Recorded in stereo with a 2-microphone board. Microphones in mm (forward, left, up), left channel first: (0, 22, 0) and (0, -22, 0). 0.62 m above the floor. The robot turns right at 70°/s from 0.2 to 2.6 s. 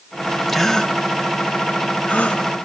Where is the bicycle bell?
No bicycle bell in this recording.